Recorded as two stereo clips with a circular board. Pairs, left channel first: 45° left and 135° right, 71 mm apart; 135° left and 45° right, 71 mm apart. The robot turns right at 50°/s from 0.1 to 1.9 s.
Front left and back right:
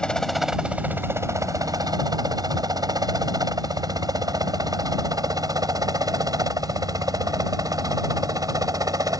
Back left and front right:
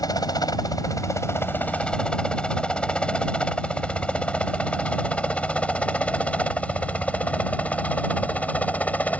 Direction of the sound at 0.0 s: 125° left.